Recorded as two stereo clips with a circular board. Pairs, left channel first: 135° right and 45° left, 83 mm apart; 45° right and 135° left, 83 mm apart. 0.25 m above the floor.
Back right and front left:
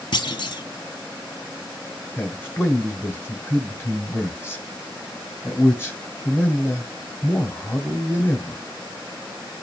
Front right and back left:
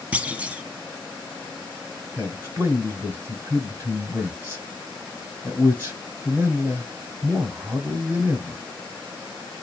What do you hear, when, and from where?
0.1 s a clunk: 155° right, 0.7 m
2.2 s a man speaking: straight behind, 1.9 m